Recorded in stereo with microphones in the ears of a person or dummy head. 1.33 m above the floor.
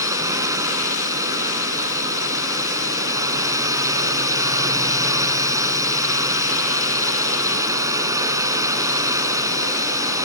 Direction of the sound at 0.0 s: 20° right (ahead or behind).